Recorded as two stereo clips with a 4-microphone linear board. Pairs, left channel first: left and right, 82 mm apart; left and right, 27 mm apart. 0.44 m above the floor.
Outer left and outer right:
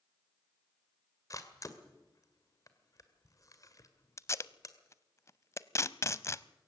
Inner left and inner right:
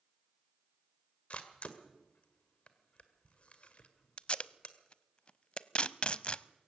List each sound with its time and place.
1.3 s a camera shutter: 45° left (ahead or behind), 1.9 m
4.2 s tape being pulled: 35° left (ahead or behind), 0.6 m